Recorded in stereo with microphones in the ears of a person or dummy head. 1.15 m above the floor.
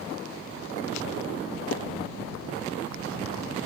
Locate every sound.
1.7 s dishes clattering: 70° left (ahead or behind)